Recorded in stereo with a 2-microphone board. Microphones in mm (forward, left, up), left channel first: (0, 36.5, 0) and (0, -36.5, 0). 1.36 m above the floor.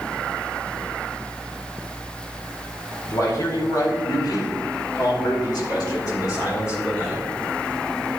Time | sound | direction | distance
3.1 | a man speaking | 50° left (ahead or behind) | 4 m